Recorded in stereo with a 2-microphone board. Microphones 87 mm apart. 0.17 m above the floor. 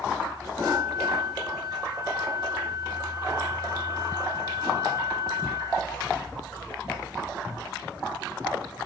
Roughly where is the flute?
Left.